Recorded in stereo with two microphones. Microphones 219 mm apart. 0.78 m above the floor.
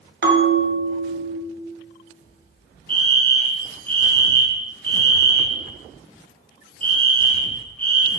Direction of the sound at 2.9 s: 10° left (ahead or behind).